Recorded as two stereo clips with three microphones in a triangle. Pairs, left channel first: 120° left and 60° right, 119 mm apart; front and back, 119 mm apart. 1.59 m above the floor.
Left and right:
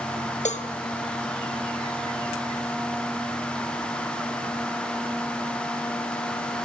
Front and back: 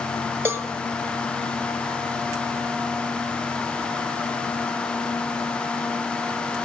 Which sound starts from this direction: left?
A cowbell, at 0.5 s.